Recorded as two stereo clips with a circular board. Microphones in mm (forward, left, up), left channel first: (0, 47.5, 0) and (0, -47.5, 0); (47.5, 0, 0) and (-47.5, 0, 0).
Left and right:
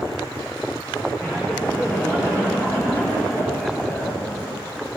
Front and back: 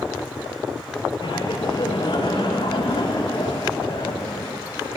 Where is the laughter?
25° left, 7 m.